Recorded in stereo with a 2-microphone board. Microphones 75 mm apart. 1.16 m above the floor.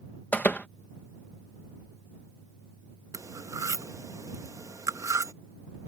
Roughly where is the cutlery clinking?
Right.